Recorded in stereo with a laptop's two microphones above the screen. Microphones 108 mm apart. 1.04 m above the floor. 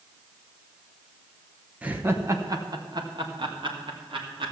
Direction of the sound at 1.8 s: 10° right (ahead or behind).